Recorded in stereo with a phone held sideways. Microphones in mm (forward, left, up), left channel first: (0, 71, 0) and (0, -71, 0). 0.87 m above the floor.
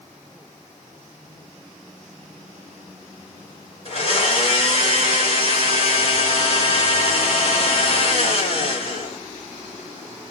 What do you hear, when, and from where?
3.9 s a blender: 45° left (ahead or behind), 1.5 m